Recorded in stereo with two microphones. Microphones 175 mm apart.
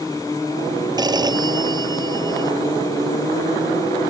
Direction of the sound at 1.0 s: 25° right (ahead or behind).